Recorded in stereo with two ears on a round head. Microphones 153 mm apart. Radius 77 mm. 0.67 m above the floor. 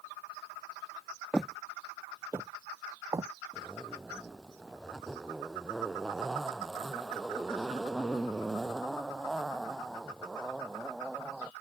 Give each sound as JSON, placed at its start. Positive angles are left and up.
{"t": 1.3, "sound": "footsteps", "side_deg": 5}
{"t": 3.5, "sound": "a zipper", "side_deg": 0}